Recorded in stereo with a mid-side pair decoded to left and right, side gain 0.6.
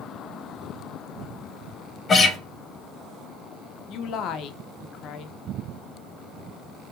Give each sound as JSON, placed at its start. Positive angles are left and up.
{"t": 2.1, "sound": "a guitar", "azimuth_deg": 30, "distance_m": 1.3}
{"t": 3.9, "sound": "a woman speaking", "azimuth_deg": 60, "distance_m": 0.6}